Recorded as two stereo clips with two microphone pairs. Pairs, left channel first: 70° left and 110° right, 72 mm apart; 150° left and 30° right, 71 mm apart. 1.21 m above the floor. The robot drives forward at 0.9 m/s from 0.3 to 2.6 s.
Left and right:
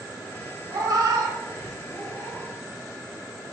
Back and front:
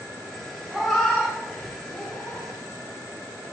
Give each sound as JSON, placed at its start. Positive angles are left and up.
{"t": 0.7, "sound": "a cat meowing", "azimuth_deg": -105, "distance_m": 0.9}